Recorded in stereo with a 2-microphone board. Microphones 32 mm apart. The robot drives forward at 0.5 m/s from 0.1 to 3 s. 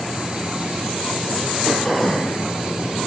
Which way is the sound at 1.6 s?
30° left (ahead or behind).